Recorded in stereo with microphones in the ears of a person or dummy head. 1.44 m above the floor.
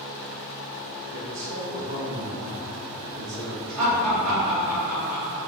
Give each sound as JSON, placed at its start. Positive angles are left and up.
{"t": 1.1, "sound": "a man speaking", "side_deg": -85, "distance_m": 1.8}
{"t": 3.8, "sound": "laughter", "side_deg": -85, "distance_m": 2.0}